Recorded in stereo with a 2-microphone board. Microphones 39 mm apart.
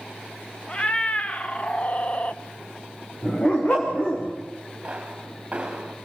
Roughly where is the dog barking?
Left.